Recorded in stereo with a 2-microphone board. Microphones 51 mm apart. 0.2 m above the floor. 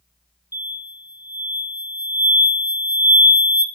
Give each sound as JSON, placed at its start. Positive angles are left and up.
{"t": 0.5, "sound": "an explosion", "side_deg": -60, "distance_m": 0.7}